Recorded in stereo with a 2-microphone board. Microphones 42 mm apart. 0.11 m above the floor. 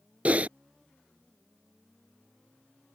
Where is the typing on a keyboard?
35° right (ahead or behind).